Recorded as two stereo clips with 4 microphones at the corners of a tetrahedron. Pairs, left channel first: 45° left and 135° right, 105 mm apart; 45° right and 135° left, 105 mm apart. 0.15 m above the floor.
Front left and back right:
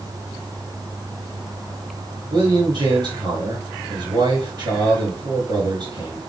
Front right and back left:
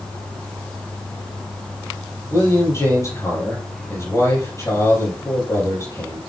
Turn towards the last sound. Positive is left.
turn(degrees=-100)